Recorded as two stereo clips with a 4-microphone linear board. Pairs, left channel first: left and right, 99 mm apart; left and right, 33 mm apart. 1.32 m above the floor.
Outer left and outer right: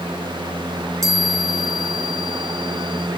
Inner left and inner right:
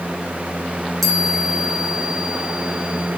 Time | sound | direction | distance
1.0 | a chime | 5° left (ahead or behind) | 4.5 m